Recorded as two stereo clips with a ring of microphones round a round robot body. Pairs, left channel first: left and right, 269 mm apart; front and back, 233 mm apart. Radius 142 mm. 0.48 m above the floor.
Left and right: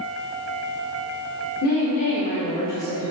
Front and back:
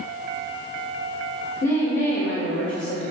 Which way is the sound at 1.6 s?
50° left.